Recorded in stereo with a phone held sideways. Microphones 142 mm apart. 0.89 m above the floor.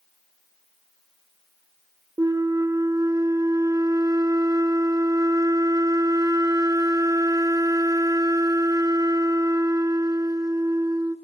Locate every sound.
2.2 s a flute: 25° right (ahead or behind), 0.9 m